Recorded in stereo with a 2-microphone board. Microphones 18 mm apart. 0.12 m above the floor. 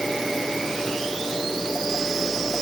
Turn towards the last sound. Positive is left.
No sound to turn to.